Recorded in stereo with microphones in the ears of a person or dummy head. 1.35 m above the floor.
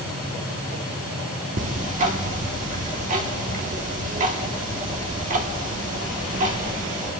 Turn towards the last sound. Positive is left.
turn(degrees=-45)  # may be behind; listen again after turning